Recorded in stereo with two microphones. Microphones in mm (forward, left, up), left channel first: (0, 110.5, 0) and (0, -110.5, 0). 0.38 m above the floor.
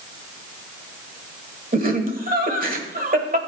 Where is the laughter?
40° right (ahead or behind), 1.5 m.